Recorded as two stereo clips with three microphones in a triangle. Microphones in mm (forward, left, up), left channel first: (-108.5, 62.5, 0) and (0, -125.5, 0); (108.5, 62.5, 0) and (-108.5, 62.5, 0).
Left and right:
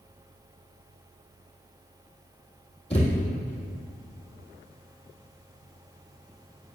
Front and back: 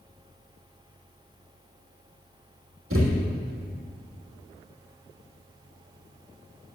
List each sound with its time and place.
2.9 s a thud: 175° right, 3 m